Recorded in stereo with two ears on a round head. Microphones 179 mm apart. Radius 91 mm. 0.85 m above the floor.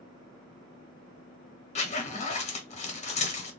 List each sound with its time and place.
1.8 s a zipper: 35° left (ahead or behind), 0.8 m